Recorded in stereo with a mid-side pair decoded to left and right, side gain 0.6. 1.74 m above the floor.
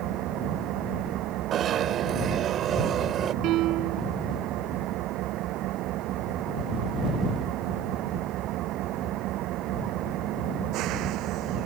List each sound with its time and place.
0.0 s an engine running: 65° right
1.5 s a zipper: 50° right
3.4 s a piano: 65° right